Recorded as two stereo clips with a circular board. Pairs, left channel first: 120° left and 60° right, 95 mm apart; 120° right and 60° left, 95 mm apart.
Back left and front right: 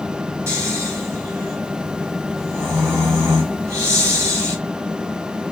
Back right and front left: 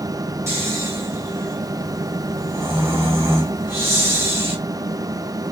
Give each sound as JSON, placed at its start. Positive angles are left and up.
{"t": 0.5, "sound": "snoring", "azimuth_deg": 0, "distance_m": 3.5}